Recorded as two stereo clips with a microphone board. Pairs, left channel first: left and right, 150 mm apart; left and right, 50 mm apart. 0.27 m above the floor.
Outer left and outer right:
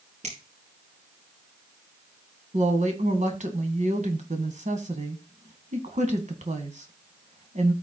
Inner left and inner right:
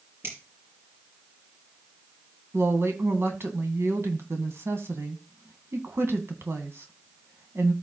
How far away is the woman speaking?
About 2.0 m.